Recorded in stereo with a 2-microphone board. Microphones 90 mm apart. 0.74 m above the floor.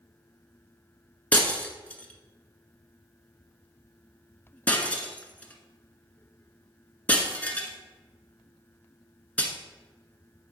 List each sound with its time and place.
1.3 s breaking glass: 15° left (ahead or behind), 1.2 m